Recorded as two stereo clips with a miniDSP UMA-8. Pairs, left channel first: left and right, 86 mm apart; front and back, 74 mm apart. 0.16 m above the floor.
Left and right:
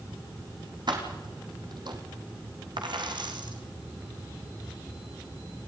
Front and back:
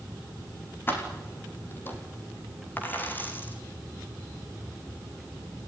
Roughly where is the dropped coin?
Ahead right.